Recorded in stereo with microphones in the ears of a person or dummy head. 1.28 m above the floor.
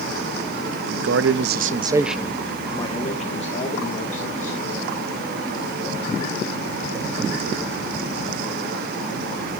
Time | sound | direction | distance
0.7 | a man speaking | 75° right (ahead or behind) | 0.9 m